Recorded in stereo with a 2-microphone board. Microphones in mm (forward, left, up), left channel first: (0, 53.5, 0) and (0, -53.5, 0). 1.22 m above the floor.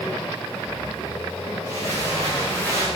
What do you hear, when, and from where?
1.6 s footsteps: 30° left (ahead or behind), 10 m